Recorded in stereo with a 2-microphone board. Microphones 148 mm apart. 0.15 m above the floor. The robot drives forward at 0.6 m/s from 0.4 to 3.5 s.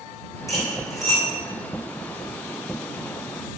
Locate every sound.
0.5 s cutlery clinking: 20° left (ahead or behind), 5 m